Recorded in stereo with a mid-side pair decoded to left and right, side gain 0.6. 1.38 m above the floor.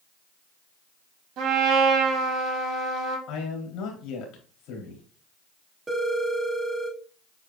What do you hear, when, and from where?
1.4 s a trumpet: 65° right, 2.5 m
3.3 s a man speaking: 70° left, 3.5 m
5.9 s a phone ringing: 15° right, 1.9 m